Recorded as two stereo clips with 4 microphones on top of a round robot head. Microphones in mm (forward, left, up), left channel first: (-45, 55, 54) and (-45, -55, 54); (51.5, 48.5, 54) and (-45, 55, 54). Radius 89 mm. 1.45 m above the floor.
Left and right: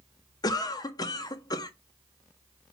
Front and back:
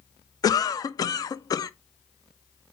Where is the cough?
40° left, 0.5 m.